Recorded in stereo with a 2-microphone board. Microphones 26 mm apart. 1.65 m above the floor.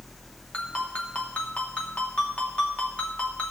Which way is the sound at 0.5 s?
70° left (ahead or behind).